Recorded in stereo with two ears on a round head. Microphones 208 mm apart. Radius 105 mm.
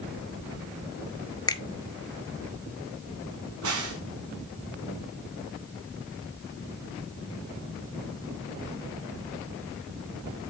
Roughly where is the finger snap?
Centre.